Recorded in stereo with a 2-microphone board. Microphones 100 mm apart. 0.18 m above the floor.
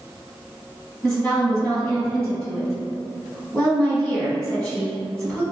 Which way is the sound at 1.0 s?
10° left (ahead or behind).